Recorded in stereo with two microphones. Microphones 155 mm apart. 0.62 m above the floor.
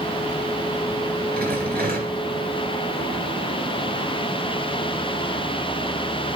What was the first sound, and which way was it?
A rattle, 70° right (ahead or behind).